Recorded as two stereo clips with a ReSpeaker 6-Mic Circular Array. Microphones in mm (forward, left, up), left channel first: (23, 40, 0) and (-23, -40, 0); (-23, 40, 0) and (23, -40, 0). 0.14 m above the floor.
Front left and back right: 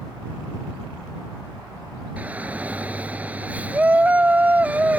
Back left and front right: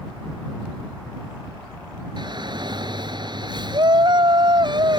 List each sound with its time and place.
2.2 s a shout: 50° right